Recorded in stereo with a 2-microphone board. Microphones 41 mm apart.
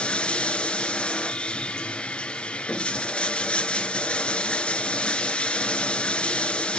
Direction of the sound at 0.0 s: 30° left (ahead or behind).